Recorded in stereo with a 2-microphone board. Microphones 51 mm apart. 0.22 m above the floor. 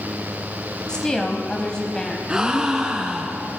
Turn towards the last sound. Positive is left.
turn(degrees=-15)  # may be behind; listen again after turning